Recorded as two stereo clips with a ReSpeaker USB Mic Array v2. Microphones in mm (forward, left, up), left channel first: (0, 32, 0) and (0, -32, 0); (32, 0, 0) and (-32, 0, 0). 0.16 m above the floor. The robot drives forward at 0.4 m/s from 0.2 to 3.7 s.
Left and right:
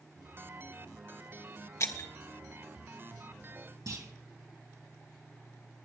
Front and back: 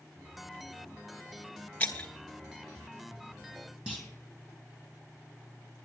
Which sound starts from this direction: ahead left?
Breaking glass, at 1.8 s.